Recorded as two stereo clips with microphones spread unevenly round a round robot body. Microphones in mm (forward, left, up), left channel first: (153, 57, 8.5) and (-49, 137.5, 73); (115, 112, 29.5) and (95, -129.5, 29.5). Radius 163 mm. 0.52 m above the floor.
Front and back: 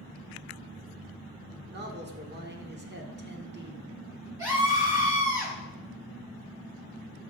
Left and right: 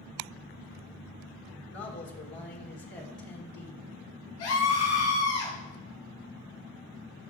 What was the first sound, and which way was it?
A man speaking, 120° left.